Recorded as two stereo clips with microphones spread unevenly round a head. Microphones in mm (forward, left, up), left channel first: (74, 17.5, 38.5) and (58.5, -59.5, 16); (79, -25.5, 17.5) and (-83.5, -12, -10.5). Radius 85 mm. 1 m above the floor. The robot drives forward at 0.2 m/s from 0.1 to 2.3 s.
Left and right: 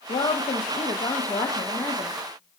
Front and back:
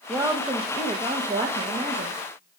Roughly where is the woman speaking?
Left.